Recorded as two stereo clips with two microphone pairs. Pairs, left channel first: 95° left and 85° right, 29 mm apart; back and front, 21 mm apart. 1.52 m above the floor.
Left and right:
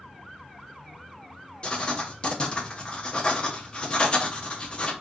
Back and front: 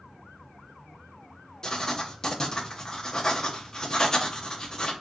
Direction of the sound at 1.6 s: 135° left.